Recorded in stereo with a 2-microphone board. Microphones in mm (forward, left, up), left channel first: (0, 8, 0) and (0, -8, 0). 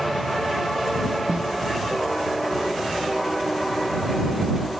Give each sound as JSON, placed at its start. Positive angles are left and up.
{"t": 1.3, "sound": "a snare drum", "side_deg": -55}